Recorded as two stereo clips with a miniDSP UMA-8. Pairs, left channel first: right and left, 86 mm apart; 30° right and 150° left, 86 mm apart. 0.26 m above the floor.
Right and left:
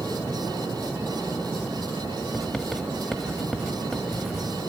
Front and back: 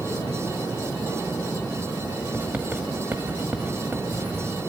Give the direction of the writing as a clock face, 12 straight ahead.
6 o'clock.